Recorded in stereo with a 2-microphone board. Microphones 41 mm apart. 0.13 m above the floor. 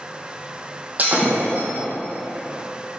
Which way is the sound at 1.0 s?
40° right (ahead or behind).